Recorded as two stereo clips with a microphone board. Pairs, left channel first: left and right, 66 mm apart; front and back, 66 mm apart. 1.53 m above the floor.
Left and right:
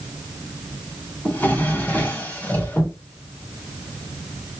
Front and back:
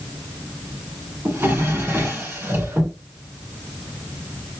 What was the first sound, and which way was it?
A drawer, 135° left.